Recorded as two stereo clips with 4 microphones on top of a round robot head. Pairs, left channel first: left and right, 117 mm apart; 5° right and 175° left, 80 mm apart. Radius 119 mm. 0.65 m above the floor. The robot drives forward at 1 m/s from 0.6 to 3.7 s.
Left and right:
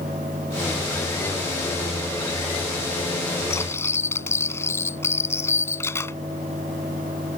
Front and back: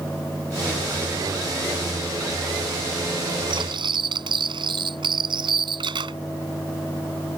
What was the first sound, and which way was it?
Cutlery clinking, 155° left.